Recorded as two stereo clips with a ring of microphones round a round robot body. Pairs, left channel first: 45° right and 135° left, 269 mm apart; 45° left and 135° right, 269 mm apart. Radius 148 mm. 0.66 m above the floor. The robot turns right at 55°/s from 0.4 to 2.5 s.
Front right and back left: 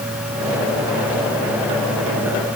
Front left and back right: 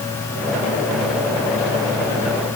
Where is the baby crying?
I don't hear a baby crying.